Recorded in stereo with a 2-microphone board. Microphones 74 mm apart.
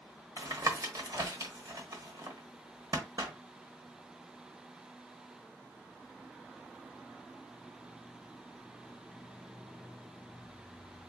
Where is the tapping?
55° right (ahead or behind), 1.1 m.